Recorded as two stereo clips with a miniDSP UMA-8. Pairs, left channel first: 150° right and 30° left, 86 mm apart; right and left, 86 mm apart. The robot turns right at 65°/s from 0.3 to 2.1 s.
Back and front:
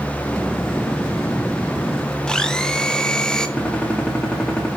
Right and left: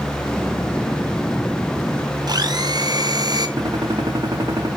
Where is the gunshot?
130° left, 3.5 m.